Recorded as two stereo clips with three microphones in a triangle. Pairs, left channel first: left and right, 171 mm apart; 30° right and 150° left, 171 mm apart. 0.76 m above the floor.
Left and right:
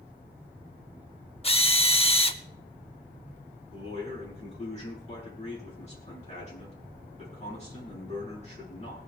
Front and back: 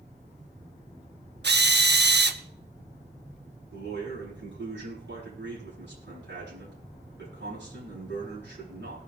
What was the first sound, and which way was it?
A drill, 145° left.